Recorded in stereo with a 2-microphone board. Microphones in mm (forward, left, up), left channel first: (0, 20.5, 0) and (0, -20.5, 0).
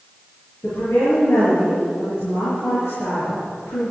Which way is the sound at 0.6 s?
75° left (ahead or behind).